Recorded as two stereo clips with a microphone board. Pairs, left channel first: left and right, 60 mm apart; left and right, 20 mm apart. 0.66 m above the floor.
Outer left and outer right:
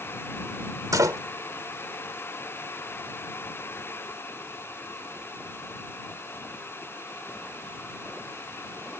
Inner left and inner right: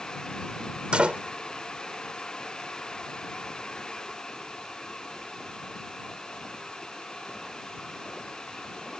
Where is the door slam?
75° right (ahead or behind).